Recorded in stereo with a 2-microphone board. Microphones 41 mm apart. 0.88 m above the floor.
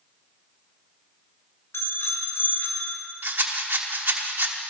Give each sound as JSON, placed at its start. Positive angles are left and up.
{"t": 1.7, "sound": "a bicycle bell", "side_deg": 75, "distance_m": 2.5}
{"t": 3.2, "sound": "a rattle", "side_deg": -55, "distance_m": 1.2}